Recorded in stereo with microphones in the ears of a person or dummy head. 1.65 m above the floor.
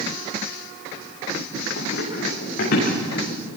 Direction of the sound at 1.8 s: 60° left (ahead or behind).